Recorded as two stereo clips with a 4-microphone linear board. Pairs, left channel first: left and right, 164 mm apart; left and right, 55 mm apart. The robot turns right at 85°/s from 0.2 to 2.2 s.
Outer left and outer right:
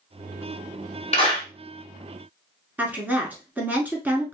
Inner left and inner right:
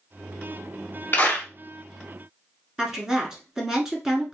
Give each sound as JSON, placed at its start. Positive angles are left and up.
{"t": 1.1, "sound": "a clap", "side_deg": 35, "distance_m": 1.4}
{"t": 2.8, "sound": "a woman speaking", "side_deg": -10, "distance_m": 1.1}